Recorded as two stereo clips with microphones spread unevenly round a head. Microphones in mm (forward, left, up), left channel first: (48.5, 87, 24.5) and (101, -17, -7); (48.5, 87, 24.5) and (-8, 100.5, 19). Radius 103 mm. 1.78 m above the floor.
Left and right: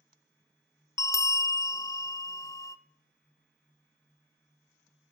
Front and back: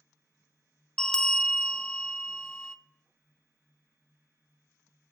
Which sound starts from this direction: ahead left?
A bell, at 1.0 s.